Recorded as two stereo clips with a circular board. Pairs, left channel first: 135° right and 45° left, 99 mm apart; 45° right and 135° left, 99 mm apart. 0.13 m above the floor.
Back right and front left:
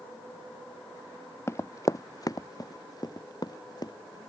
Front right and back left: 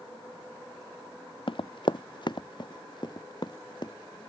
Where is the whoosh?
No whoosh in this recording.